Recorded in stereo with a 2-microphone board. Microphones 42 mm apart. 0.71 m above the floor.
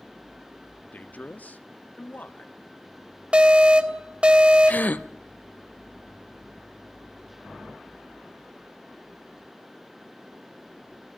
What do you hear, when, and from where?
0.9 s a man speaking: 40° left (ahead or behind), 1.0 m
3.3 s an alarm: 25° right (ahead or behind), 1.6 m
4.7 s a gasp: 45° left (ahead or behind), 0.7 m